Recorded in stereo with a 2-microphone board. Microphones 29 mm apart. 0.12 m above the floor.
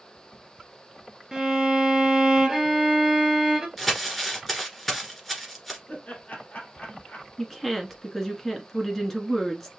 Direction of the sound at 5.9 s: 60° left (ahead or behind).